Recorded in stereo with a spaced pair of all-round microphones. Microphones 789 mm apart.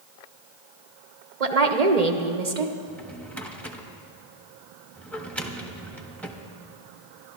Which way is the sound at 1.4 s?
50° right (ahead or behind).